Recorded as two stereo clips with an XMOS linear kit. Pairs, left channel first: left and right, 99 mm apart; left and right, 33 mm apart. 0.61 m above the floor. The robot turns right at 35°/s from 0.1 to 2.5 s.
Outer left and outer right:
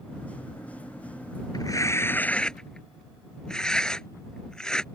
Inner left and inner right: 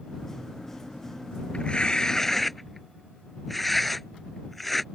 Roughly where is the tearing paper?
Left.